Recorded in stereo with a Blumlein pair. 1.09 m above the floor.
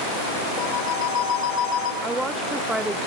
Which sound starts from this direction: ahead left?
A phone ringing, at 0.6 s.